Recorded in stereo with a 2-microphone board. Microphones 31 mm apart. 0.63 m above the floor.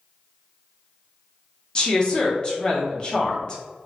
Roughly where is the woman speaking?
Left.